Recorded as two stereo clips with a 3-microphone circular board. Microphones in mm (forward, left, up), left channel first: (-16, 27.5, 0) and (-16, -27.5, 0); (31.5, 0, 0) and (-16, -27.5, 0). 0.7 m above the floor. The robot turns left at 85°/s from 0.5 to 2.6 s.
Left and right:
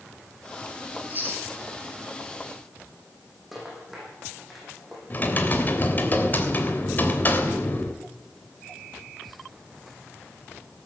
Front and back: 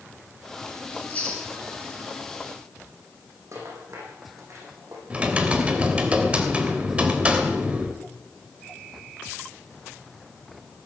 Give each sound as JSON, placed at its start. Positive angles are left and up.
{"t": 0.9, "sound": "chewing", "azimuth_deg": -15, "distance_m": 6.0}
{"t": 3.5, "sound": "a rattle", "azimuth_deg": -175, "distance_m": 8.5}
{"t": 5.1, "sound": "typing on a keyboard", "azimuth_deg": 145, "distance_m": 3.0}